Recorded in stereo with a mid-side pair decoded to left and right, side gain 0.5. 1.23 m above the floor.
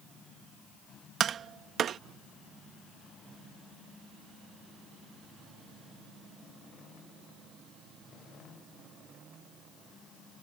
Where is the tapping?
55° right.